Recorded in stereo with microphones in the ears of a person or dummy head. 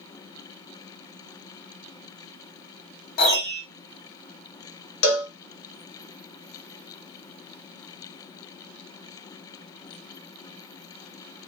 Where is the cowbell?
60° left (ahead or behind), 0.6 m.